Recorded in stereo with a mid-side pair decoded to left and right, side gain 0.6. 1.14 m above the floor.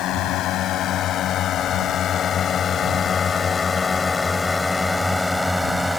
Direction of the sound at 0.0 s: 60° left.